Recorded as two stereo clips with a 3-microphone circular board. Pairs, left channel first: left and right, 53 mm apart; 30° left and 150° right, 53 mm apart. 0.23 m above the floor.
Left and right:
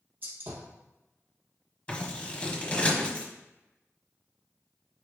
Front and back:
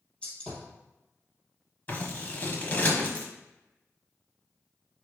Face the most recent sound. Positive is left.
turn(degrees=45)